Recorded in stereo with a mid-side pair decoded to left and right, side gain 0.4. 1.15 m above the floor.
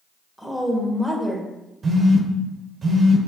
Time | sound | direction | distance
0.4 | a woman speaking | 5° left | 1.5 m
1.8 | a phone buzzing | 45° right | 0.8 m